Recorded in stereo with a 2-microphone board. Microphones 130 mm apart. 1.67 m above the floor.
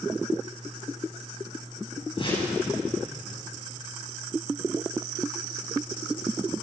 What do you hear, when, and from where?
2.2 s a whoosh: 40° left (ahead or behind), 10 m